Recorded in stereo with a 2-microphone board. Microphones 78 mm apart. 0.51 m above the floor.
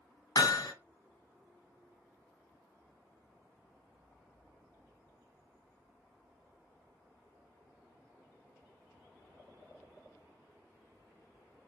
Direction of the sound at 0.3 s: 65° left (ahead or behind).